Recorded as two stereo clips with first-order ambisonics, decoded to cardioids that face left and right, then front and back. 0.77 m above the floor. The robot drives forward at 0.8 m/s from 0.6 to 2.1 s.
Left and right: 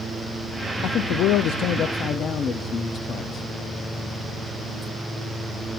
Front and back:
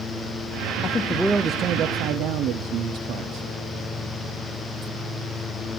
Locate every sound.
0.8 s a man speaking: 55° left, 0.7 m; by 3.5 s 145° left, 0.9 m